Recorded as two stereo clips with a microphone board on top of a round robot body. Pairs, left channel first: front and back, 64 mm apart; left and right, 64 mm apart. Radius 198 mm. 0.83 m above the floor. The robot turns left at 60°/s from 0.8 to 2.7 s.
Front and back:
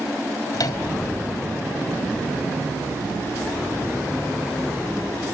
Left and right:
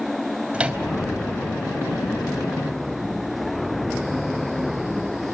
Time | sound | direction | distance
0.5 | a microwave | 15° right | 3 m